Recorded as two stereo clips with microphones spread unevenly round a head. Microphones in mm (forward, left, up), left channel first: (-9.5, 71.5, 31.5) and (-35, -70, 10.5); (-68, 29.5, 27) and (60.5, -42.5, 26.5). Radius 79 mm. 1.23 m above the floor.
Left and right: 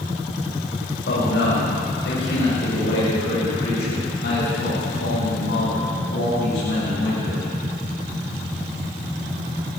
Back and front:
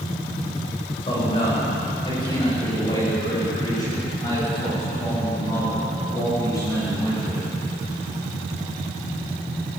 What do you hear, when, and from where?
1.1 s a man speaking: 90° left, 7 m; by 7.4 s 80° left, 10.5 m